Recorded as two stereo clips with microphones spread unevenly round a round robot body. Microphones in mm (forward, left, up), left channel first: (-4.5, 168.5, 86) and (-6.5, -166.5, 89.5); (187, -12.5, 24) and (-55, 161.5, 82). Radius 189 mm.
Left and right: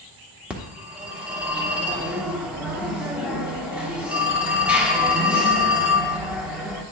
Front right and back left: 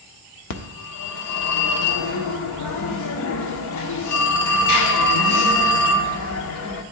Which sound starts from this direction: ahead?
A phone ringing, at 0.5 s.